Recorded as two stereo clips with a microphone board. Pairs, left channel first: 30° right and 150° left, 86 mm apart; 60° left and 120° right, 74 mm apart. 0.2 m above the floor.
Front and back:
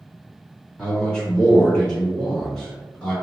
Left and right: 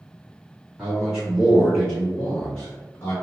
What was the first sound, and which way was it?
A man speaking, 80° right.